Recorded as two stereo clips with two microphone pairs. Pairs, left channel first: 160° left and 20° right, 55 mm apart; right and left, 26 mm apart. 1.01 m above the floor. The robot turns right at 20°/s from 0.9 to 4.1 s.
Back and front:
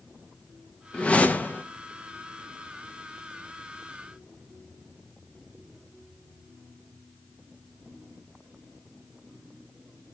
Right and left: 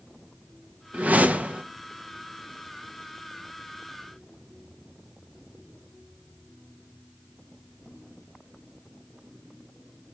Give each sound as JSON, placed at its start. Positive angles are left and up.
{"t": 0.9, "sound": "a whoosh", "azimuth_deg": 90, "distance_m": 0.8}